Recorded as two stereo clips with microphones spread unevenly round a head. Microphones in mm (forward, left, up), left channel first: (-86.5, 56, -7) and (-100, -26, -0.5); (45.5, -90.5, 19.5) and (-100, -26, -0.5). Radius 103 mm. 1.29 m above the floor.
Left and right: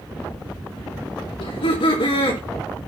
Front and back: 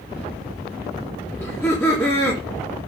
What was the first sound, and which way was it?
Laughter, 55° left.